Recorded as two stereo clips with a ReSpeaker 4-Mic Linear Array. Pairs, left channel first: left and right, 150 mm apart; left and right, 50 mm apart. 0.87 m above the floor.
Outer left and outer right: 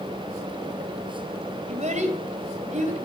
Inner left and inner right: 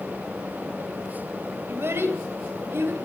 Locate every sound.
1.7 s a child speaking: 50° right (ahead or behind), 3 m